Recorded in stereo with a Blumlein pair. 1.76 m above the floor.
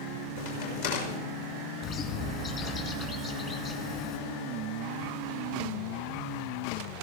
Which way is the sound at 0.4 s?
60° left.